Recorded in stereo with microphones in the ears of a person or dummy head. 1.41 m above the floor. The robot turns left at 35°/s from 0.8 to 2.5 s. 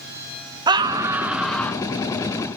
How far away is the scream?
About 1.0 m.